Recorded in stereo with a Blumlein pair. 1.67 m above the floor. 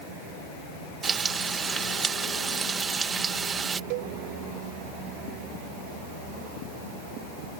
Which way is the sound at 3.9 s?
45° right.